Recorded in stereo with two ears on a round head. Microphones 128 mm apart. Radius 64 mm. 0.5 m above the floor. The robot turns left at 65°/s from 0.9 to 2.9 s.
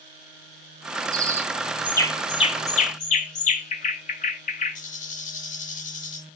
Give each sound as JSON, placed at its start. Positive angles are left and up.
{"t": 1.1, "sound": "a bird", "side_deg": -30, "distance_m": 1.7}